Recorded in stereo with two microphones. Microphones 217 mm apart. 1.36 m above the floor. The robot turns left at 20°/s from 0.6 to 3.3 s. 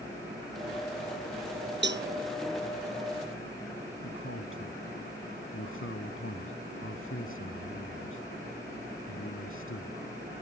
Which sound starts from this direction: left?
A man speaking, at 4.0 s.